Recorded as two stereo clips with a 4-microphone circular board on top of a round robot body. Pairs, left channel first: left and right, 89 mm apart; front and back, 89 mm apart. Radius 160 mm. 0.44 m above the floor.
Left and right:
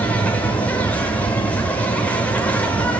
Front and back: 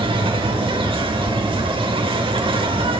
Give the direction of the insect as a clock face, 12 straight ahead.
7 o'clock.